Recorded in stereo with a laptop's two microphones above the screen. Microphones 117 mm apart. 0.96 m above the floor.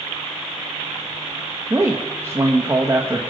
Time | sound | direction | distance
1.7 | a man speaking | 25° right (ahead or behind) | 1.1 m